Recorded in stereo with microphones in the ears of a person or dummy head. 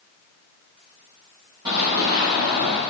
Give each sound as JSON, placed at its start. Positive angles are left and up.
{"t": 1.6, "sound": "running footsteps", "side_deg": -25, "distance_m": 1.8}